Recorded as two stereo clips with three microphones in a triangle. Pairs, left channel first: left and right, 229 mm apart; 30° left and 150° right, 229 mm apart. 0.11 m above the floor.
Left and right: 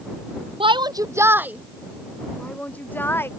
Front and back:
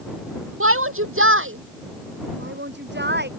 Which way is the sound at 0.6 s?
155° right.